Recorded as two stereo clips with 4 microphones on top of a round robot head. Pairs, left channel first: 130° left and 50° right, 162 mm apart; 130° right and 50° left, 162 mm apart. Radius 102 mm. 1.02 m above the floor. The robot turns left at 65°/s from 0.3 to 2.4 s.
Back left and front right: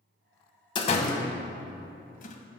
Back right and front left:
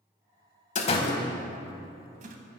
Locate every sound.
0.8 s a door slam: 170° right, 0.7 m; by 2.4 s 85° left, 0.7 m